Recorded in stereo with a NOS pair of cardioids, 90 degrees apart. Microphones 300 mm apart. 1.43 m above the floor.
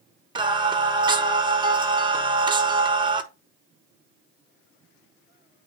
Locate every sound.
0.3 s singing: 15° right, 1.2 m